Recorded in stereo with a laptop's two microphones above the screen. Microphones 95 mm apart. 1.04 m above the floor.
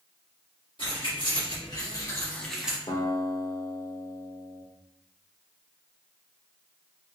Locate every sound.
0.8 s keys jangling: 60° left (ahead or behind), 1.5 m; by 2.8 s 10° right (ahead or behind), 0.6 m
2.9 s a guitar: 45° left (ahead or behind), 0.8 m